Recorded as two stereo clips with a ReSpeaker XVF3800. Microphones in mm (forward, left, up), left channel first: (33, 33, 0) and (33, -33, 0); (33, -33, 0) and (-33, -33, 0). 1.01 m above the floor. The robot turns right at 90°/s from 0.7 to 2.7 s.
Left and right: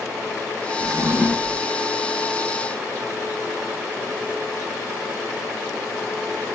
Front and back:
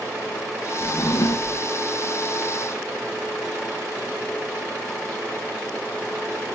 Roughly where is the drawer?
Ahead right.